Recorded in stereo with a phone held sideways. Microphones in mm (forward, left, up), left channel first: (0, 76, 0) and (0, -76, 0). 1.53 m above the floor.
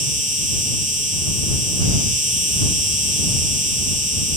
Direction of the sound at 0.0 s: 55° right (ahead or behind).